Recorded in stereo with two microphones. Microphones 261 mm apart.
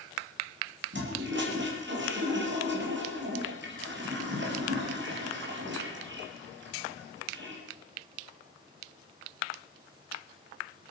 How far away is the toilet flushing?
About 3.5 m.